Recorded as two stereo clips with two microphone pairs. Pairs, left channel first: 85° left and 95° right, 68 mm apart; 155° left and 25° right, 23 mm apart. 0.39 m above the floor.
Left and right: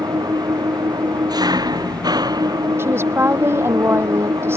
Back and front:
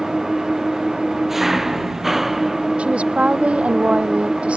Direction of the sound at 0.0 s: 100° right.